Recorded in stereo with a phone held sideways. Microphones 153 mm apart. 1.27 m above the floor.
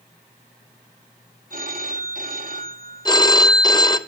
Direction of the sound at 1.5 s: 55° right (ahead or behind).